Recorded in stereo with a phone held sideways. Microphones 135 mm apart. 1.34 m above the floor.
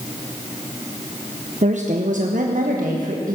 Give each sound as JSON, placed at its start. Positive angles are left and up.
{"t": 1.6, "sound": "a woman speaking", "side_deg": -60, "distance_m": 0.9}